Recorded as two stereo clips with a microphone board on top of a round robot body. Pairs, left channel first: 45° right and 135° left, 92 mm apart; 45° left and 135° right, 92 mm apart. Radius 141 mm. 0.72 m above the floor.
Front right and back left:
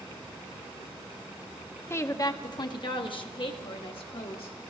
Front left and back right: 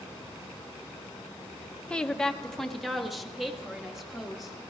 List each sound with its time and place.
1.9 s a woman speaking: 25° right, 0.7 m; by 4.5 s 50° right, 2 m